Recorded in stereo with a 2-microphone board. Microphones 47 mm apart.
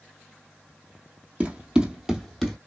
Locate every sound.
1.4 s running footsteps: 30° right (ahead or behind), 1.0 m; by 2.6 s 10° left (ahead or behind), 1.0 m